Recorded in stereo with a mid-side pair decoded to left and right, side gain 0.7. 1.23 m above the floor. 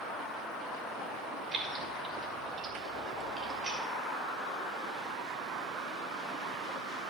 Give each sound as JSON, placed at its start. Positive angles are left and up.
{"t": 1.5, "sound": "keys jangling", "azimuth_deg": -25, "distance_m": 2.5}